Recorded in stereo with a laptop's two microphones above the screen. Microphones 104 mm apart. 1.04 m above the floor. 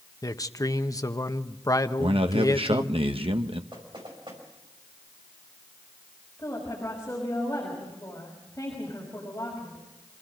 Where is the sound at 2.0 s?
60° right (ahead or behind), 1.2 m.